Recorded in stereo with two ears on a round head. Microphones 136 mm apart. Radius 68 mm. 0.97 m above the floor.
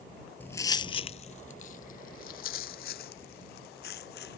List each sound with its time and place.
0.4 s footsteps: 10° left (ahead or behind); by 4.4 s 75° left (ahead or behind)